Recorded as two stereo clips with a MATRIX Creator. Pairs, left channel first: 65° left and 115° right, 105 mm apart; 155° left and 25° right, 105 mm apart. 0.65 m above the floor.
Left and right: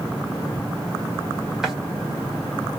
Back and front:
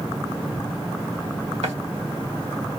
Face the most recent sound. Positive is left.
turn(degrees=-25)